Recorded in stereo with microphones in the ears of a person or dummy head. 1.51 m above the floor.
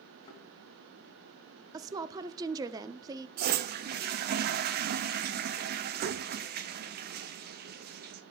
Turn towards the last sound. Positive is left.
turn(degrees=-50)  # may be behind; listen again after turning